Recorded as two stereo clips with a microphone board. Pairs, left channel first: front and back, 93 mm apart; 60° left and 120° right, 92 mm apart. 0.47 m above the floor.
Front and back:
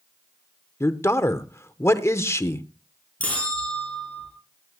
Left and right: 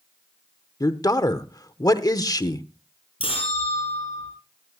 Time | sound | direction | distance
0.8 | a man speaking | 40° left | 0.9 m
3.2 | a bell | 75° left | 7 m